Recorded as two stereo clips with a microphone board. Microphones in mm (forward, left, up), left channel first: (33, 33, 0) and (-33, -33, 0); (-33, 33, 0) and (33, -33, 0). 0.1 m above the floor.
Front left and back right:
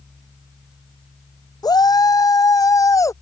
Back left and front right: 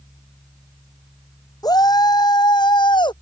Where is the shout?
90° left; by 3.1 s 100° left.